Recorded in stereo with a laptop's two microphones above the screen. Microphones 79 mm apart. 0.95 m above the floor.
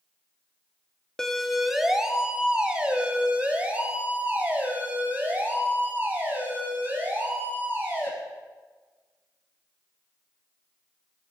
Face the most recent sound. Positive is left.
turn(degrees=-30)  # may be behind; listen again after turning